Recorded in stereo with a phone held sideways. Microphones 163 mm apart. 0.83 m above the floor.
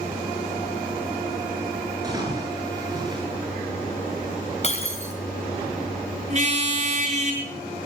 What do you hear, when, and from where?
2.0 s a splash: 25° right (ahead or behind), 9 m
4.6 s breaking glass: 45° left (ahead or behind), 4 m
6.3 s a car horn: 45° right (ahead or behind), 6 m